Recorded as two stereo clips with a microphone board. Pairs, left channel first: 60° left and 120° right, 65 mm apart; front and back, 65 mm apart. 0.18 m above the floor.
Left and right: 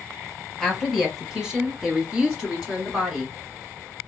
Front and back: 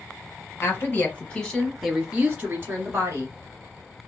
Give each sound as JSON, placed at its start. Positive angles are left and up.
{"t": 0.6, "sound": "a woman speaking", "azimuth_deg": -35, "distance_m": 1.4}